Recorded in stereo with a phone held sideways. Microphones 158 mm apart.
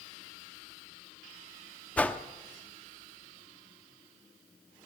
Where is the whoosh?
10° left (ahead or behind), 1.0 m.